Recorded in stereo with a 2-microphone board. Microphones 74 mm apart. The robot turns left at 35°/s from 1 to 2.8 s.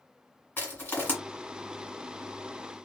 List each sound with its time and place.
0.6 s crushing: 25° left (ahead or behind), 1.6 m